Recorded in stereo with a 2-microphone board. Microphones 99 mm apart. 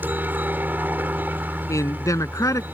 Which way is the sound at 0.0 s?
20° right (ahead or behind).